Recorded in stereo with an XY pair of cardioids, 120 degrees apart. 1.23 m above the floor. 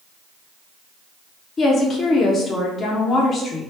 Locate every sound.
1.6 s a woman speaking: 40° left, 1.0 m